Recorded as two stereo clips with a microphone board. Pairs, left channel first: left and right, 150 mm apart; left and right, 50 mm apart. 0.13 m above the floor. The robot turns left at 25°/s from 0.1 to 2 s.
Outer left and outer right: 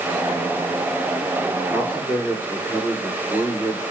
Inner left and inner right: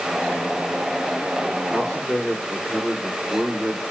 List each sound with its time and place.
1.7 s a man speaking: 10° left (ahead or behind), 8.5 m; by 3.8 s 20° left (ahead or behind), 8.5 m